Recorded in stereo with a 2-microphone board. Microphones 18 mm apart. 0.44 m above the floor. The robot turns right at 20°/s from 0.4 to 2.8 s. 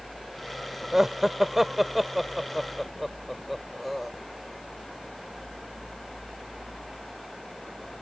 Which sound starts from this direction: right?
Laughter, at 0.9 s.